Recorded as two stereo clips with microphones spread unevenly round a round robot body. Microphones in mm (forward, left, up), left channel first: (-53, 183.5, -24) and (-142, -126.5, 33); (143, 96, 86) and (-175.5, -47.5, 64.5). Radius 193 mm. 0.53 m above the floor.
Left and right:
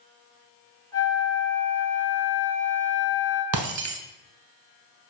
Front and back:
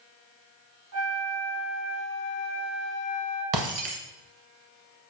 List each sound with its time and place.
0.9 s a flute: 155° left, 3 m
3.5 s breaking glass: 125° right, 0.7 m